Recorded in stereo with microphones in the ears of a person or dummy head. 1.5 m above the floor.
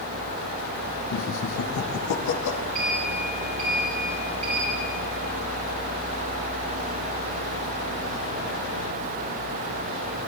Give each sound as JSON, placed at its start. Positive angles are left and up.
{"t": 1.1, "sound": "laughter", "side_deg": 65, "distance_m": 1.3}
{"t": 2.8, "sound": "a sliding door", "side_deg": -40, "distance_m": 4.5}